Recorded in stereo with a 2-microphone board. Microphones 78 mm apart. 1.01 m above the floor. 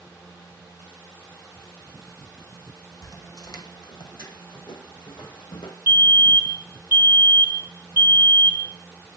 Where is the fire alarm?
30° right (ahead or behind), 6.5 m.